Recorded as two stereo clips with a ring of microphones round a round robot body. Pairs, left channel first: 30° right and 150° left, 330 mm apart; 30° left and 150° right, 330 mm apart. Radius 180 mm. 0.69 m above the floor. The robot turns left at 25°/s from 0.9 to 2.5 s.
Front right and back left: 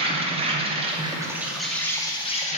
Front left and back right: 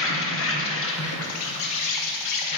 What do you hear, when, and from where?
0.0 s an insect: 80° left, 0.8 m; by 2.6 s 40° left, 0.8 m